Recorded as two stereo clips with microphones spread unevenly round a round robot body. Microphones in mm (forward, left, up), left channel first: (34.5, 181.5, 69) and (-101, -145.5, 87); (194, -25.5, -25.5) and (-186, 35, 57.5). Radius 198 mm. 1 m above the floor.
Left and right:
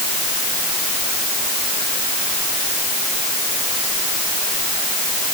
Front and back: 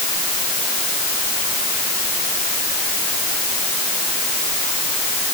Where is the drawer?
No drawer in this recording.